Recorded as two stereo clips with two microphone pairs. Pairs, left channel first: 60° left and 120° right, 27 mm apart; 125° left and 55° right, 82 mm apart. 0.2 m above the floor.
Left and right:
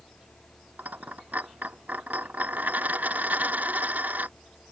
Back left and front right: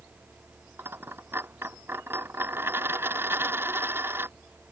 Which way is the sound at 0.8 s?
110° right.